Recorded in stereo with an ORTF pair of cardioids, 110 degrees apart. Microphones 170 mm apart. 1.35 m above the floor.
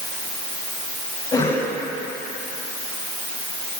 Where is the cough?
25° left, 10 m.